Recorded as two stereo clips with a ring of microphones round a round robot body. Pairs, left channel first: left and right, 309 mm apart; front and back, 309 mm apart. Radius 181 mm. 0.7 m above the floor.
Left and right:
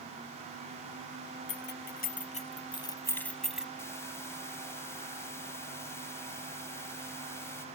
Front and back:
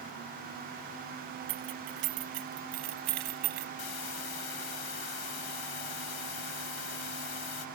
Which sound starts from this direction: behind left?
Keys jangling, at 1.5 s.